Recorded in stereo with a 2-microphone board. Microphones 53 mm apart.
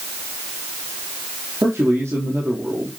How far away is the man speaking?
About 5 m.